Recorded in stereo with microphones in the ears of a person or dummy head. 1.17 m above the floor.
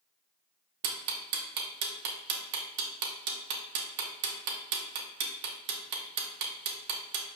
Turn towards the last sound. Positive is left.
turn(degrees=-55)  # may be behind; listen again after turning